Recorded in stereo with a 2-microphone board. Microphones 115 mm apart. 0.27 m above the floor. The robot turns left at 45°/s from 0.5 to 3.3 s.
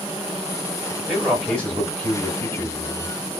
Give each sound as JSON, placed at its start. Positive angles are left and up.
{"t": 1.1, "sound": "a man speaking", "side_deg": 0, "distance_m": 1.7}